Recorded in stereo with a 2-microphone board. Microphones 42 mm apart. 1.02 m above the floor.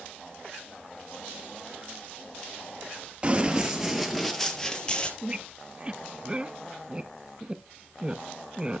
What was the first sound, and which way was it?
Running footsteps, 25° right (ahead or behind).